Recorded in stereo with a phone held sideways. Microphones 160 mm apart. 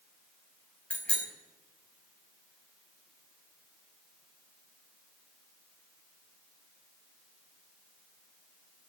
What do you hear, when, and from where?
0.9 s a bicycle bell: 5° left (ahead or behind), 4.5 m